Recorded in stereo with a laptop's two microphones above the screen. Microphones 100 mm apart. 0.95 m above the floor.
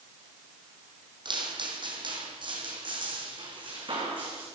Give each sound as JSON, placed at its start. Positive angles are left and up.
{"t": 1.2, "sound": "footsteps", "side_deg": -50, "distance_m": 1.7}